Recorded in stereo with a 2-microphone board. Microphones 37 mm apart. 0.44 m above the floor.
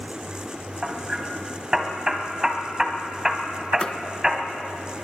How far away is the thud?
About 0.8 m.